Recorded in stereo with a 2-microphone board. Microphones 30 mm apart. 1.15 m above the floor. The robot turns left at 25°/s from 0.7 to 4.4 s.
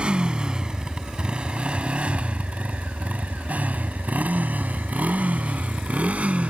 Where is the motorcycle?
35° right (ahead or behind); by 6.5 s 50° right (ahead or behind).